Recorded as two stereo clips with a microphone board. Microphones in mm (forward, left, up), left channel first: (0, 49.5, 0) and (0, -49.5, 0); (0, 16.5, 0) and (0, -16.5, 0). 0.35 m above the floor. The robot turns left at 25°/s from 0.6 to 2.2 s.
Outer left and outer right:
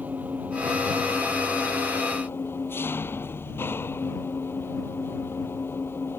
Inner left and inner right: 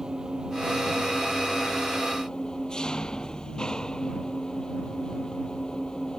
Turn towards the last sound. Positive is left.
turn(degrees=160)